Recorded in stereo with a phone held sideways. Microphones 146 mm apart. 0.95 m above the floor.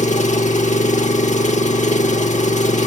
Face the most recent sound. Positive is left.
turn(degrees=60)  # may be behind; listen again after turning